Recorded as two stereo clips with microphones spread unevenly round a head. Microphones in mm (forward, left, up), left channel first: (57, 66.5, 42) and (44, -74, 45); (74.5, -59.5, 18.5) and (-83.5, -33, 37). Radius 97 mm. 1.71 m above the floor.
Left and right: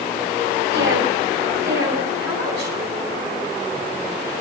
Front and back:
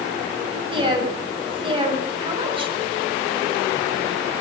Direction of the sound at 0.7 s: 130° right.